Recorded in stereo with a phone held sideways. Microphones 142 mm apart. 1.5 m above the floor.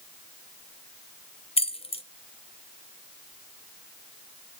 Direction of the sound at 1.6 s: 45° left (ahead or behind).